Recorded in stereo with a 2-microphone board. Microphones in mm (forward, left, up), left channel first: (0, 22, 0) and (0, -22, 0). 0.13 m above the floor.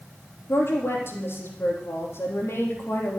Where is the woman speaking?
70° left (ahead or behind), 4.5 m.